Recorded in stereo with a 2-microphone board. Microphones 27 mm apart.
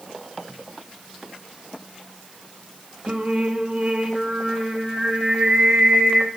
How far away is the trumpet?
No trumpet in this recording.